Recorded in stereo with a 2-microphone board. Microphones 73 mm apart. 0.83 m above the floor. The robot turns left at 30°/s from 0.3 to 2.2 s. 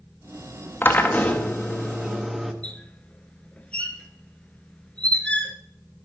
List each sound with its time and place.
0.8 s a drill: 35° left, 1.2 m; by 2.5 s 5° right, 1.2 m
2.6 s a squeak: 15° left (ahead or behind), 1.1 m